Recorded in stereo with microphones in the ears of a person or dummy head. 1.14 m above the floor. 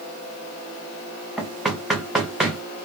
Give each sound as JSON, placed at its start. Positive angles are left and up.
{"t": 1.4, "sound": "knocking", "side_deg": 0, "distance_m": 0.6}